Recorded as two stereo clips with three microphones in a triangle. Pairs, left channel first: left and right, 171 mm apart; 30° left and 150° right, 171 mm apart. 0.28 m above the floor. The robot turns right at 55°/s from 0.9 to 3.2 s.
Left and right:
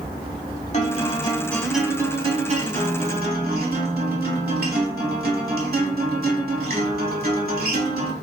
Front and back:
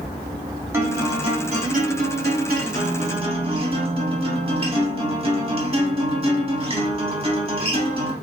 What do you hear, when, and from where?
0.7 s a guitar: 135° left, 0.8 m; by 8.1 s 95° right, 0.8 m